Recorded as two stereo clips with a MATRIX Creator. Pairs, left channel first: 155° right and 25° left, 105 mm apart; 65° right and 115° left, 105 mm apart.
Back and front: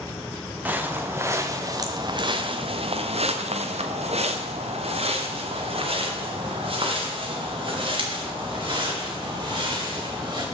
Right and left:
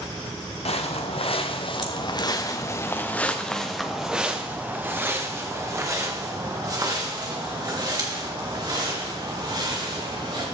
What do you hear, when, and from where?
0.7 s footsteps: 50° right, 1.5 m; by 10.4 s 70° left, 4 m